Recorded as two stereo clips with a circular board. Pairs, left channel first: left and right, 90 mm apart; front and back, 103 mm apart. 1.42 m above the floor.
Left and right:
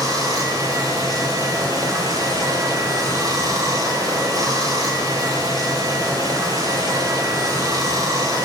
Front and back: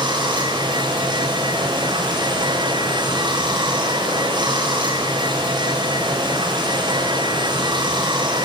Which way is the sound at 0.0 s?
140° right.